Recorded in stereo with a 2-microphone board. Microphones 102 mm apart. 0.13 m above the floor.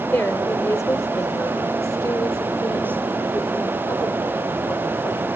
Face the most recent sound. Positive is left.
turn(degrees=40)  # may be behind; listen again after turning